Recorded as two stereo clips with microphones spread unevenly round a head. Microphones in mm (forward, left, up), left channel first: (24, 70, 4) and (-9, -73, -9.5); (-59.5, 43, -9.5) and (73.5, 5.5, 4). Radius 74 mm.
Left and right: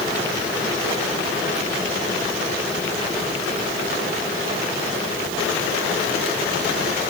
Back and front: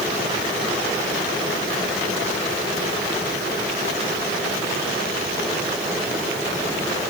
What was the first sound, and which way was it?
Only background noise.